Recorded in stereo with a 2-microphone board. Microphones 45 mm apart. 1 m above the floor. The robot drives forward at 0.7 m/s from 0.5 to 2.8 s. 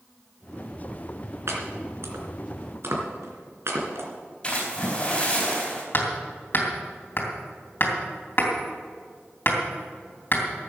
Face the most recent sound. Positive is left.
turn(degrees=50)  # may be behind; listen again after turning